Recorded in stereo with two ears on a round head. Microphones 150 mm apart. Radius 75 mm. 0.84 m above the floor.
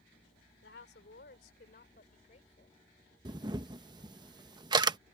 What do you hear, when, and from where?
0.6 s a woman speaking: 70° left (ahead or behind); by 2.8 s 40° left (ahead or behind)
3.2 s a camera shutter: 25° right (ahead or behind)